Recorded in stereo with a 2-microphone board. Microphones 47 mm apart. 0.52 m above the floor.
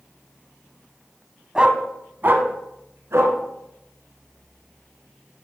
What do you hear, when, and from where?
1.6 s a dog barking: 20° right (ahead or behind), 0.7 m; by 3.4 s 75° right (ahead or behind), 1.5 m